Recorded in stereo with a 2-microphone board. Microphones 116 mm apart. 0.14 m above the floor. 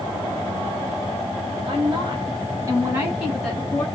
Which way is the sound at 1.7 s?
45° right (ahead or behind).